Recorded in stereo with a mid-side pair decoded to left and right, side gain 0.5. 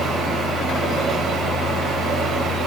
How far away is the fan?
About 1.8 m.